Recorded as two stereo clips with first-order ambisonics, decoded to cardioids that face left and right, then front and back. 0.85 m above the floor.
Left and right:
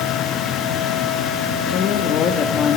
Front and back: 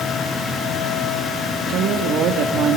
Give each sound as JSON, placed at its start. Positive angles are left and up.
{"t": 1.7, "sound": "a woman speaking", "azimuth_deg": 140, "distance_m": 1.8}